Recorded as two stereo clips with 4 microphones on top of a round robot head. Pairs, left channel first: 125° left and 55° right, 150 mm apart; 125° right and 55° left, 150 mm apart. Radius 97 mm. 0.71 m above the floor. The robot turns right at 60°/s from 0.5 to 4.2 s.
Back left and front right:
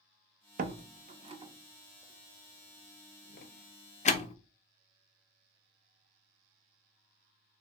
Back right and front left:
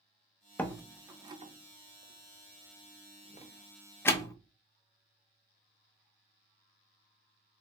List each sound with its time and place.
0.6 s a door slam: 50° right, 0.5 m; by 4.4 s 170° left, 0.5 m